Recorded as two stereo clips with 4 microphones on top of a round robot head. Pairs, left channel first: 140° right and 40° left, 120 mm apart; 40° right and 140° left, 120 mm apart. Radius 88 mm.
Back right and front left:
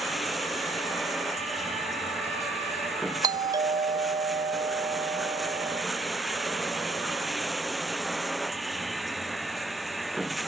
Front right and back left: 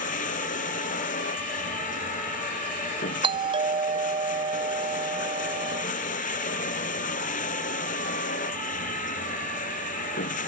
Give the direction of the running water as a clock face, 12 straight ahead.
2 o'clock.